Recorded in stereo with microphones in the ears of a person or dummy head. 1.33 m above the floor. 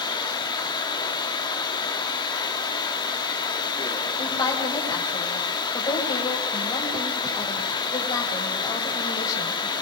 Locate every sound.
0.0 s running water: 20° left (ahead or behind), 3 m
4.2 s a woman speaking: 20° left (ahead or behind), 8.5 m